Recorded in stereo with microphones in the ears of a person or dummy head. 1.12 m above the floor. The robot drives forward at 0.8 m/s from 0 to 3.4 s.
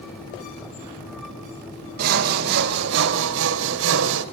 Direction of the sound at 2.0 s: 50° right (ahead or behind).